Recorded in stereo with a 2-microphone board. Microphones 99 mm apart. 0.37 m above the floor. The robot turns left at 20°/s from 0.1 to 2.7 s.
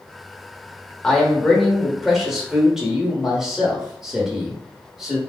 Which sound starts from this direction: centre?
A man speaking, at 1.0 s.